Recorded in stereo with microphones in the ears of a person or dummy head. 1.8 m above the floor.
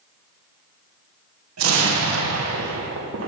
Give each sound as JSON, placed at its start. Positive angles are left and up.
{"t": 1.6, "sound": "an explosion", "side_deg": -85, "distance_m": 2.0}